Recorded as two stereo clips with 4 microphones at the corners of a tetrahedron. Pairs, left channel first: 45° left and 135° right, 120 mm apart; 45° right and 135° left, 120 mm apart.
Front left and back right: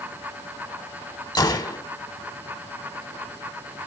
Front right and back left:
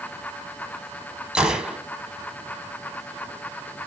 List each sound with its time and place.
1.4 s a gunshot: 60° left, 0.8 m